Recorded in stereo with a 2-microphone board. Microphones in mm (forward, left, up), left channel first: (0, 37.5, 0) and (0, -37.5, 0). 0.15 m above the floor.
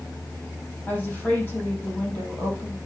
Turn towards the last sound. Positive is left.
turn(degrees=20)  # may be behind; listen again after turning